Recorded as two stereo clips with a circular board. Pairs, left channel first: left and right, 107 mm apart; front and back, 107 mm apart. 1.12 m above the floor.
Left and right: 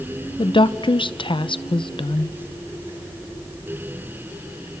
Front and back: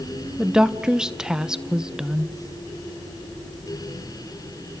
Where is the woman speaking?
100° left, 0.7 m.